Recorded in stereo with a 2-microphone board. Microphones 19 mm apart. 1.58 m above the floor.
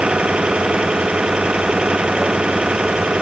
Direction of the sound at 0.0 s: 75° right (ahead or behind).